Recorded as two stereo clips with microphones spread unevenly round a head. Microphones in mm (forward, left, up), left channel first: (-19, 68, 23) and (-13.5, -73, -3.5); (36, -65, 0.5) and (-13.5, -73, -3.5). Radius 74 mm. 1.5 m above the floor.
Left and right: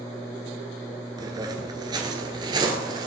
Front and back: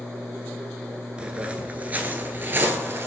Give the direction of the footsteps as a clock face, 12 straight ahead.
4 o'clock.